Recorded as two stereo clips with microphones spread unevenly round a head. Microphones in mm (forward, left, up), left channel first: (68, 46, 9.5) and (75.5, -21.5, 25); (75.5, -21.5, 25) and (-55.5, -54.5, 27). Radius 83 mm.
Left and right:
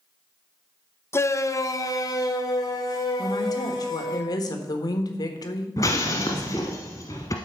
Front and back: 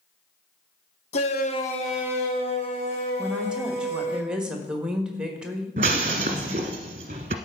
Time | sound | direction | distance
1.1 | a shout | 55° left | 0.9 m
3.2 | a woman speaking | 110° left | 1.4 m
5.8 | breaking glass | 160° left | 1.1 m